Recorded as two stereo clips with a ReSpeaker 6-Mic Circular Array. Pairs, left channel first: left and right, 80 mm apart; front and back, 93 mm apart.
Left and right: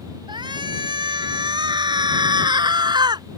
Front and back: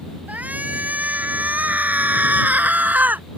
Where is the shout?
105° right; by 3.3 s 110° right.